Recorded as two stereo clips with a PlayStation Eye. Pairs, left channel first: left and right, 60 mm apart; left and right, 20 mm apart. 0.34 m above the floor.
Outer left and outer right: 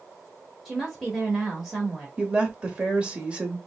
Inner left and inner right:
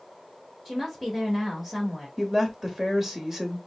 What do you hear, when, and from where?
0.7 s a woman speaking: centre (ahead or behind), 1.1 m
2.2 s a woman speaking: 20° right (ahead or behind), 1.0 m